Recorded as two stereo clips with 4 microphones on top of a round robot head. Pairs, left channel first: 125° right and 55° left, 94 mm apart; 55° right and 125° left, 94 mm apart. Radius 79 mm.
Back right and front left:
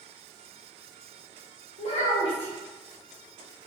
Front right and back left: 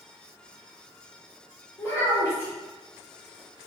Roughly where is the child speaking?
Behind right.